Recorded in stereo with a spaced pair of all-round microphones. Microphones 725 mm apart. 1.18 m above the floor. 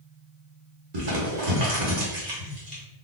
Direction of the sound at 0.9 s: 65° right (ahead or behind).